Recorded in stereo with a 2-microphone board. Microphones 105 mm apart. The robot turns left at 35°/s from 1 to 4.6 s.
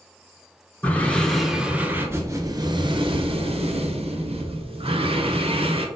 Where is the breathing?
15° left, 0.5 m; by 5.9 s 110° right, 0.5 m.